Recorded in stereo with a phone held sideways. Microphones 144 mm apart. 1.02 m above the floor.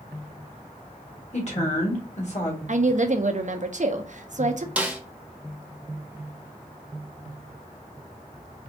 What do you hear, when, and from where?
1.3 s a woman speaking: 50° left (ahead or behind), 1.7 m
2.7 s a woman speaking: 60° right (ahead or behind), 0.6 m
4.8 s a snare drum: 10° right (ahead or behind), 0.8 m